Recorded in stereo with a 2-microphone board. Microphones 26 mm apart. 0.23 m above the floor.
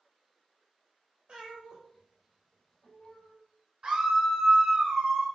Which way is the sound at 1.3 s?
40° right (ahead or behind).